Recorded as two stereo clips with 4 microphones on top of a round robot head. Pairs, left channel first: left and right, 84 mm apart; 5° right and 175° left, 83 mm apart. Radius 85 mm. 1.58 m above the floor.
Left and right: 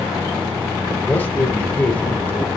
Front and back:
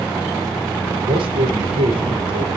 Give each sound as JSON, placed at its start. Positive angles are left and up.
{"t": 1.0, "sound": "a man speaking", "azimuth_deg": 160, "distance_m": 5.0}